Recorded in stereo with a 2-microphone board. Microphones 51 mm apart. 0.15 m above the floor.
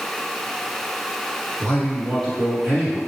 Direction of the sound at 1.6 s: 10° left (ahead or behind).